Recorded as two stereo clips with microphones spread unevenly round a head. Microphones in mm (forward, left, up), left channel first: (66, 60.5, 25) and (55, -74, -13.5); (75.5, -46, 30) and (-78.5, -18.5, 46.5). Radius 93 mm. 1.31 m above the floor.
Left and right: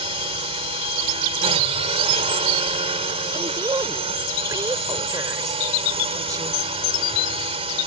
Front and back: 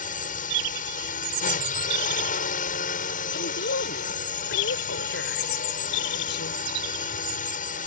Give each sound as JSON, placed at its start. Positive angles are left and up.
{"t": 0.0, "sound": "a drone", "azimuth_deg": -45}
{"t": 3.3, "sound": "a woman speaking", "azimuth_deg": -25}